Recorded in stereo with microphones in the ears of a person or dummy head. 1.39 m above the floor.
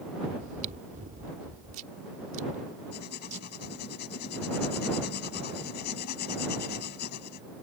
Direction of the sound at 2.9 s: 45° left (ahead or behind).